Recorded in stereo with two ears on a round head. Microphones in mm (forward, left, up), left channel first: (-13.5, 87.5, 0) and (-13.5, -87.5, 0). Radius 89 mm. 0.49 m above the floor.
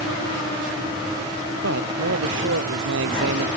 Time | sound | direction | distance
1.6 | a man speaking | 75° right (ahead or behind) | ?